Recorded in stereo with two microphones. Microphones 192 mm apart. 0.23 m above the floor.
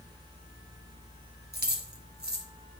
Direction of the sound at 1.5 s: 55° right (ahead or behind).